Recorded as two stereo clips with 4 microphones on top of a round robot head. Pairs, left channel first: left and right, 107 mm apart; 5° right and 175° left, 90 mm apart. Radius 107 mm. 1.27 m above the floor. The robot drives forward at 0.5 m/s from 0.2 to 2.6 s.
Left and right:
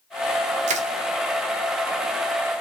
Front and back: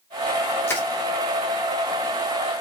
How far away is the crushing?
About 0.6 m.